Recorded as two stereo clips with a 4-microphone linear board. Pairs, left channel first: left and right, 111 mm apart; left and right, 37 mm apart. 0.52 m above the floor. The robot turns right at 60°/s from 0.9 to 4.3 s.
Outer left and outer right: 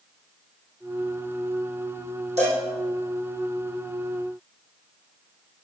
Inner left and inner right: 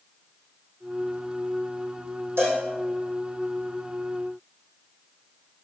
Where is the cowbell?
85° right, 5.5 m; by 2.6 s 70° right (ahead or behind), 5.5 m.